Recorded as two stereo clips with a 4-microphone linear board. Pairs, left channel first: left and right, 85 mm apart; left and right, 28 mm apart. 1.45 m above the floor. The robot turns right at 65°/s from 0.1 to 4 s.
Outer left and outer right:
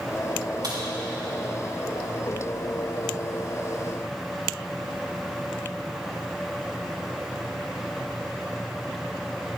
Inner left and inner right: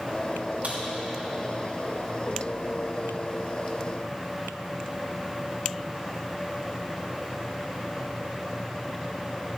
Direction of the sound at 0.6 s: 55° right (ahead or behind).